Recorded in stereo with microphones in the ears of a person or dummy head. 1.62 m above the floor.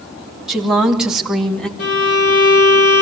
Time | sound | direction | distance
0.5 | a woman speaking | 10° right (ahead or behind) | 2.5 m
1.8 | a violin | 85° left | 5 m